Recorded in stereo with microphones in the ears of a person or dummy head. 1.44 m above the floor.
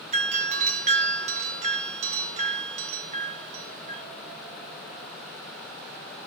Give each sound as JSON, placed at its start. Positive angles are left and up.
{"t": 0.1, "sound": "a doorbell", "side_deg": -40, "distance_m": 2.5}